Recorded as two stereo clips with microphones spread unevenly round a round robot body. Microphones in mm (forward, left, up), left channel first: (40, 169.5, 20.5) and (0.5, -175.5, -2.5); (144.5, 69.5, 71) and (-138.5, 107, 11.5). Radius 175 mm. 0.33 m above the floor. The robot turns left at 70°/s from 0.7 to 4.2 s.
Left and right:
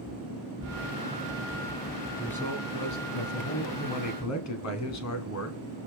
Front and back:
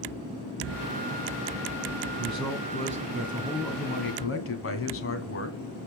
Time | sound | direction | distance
2.2 | a man speaking | straight behind | 2.5 m